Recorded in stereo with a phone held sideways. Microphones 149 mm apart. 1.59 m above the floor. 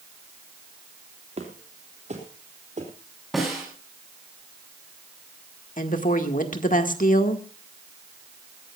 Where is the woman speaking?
60° left (ahead or behind), 1.8 m.